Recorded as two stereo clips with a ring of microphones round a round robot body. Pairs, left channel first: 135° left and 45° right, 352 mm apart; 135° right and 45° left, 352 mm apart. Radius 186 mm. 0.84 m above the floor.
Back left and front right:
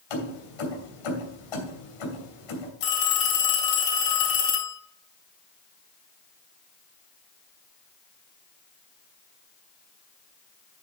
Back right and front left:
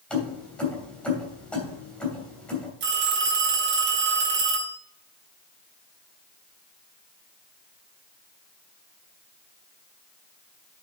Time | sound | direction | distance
0.1 | keys jangling | 140° left | 3 m
2.8 | a phone ringing | 105° left | 3.5 m